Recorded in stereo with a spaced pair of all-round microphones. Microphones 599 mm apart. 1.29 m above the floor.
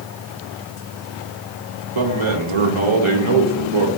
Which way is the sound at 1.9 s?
50° right (ahead or behind).